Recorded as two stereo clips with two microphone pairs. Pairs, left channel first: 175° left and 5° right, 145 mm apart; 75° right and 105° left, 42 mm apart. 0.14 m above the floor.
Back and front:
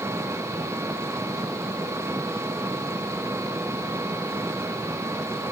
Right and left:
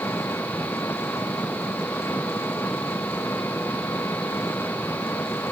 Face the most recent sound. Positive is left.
turn(degrees=-80)